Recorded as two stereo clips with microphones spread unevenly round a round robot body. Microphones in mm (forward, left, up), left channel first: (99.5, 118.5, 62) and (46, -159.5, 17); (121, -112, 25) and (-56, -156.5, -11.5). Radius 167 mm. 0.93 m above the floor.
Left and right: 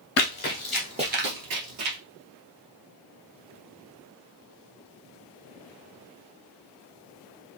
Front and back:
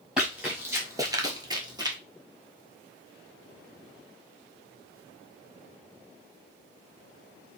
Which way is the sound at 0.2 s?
95° left.